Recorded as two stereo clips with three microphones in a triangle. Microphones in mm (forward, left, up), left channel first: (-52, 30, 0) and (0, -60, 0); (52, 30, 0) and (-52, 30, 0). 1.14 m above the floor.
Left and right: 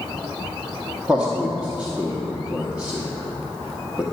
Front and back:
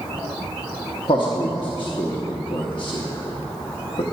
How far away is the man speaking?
About 0.7 m.